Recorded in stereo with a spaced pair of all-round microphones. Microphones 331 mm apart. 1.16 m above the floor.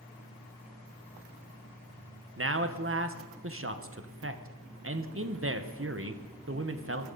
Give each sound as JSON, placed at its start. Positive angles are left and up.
{"t": 2.4, "sound": "a man speaking", "side_deg": -40, "distance_m": 0.8}